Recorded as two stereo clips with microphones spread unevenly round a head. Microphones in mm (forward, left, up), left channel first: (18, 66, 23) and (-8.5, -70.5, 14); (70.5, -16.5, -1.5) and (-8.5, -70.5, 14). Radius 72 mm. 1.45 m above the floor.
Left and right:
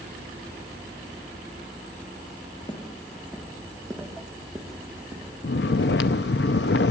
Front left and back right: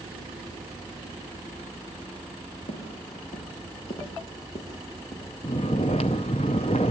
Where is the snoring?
90° left, 0.6 m.